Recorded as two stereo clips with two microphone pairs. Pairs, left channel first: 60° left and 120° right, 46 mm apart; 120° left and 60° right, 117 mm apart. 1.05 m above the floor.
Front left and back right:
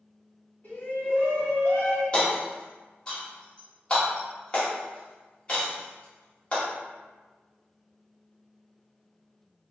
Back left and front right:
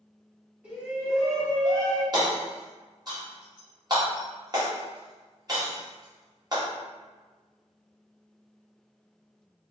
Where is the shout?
15° left, 1.7 m; by 2.0 s 90° left, 1.1 m.